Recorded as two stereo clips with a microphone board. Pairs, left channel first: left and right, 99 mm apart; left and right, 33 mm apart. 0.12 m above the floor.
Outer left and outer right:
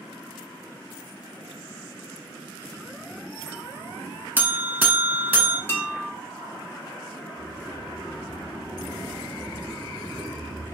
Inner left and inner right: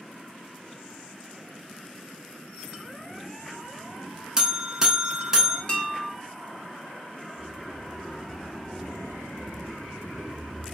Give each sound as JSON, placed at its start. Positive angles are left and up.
{"t": 4.4, "sound": "a buzzer", "side_deg": -20, "distance_m": 0.6}
{"t": 5.7, "sound": "dishes clattering", "side_deg": 25, "distance_m": 0.9}
{"t": 7.4, "sound": "a sliding door", "side_deg": -15, "distance_m": 0.9}